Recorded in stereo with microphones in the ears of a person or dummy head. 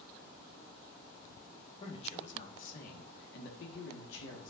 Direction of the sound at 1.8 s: 35° left (ahead or behind).